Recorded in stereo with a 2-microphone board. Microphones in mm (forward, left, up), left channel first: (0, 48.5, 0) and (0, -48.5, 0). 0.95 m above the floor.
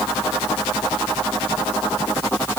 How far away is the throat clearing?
I don't hear throat clearing.